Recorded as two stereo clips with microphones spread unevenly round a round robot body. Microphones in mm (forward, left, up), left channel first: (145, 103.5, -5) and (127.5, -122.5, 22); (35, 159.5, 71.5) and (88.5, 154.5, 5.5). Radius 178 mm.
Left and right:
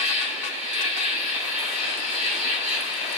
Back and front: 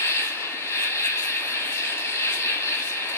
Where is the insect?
135° left, 0.9 m.